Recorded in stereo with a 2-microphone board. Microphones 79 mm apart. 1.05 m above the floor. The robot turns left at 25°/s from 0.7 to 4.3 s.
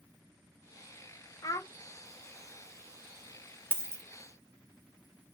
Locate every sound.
1.4 s a child speaking: 45° left (ahead or behind), 0.6 m; by 1.7 s 50° left (ahead or behind), 0.6 m
3.7 s a dropped coin: 30° right (ahead or behind), 0.6 m; by 4.0 s 35° right (ahead or behind), 0.6 m